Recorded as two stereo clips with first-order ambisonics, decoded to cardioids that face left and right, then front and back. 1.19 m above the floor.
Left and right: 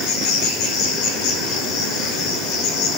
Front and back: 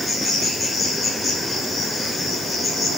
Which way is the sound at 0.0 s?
85° left.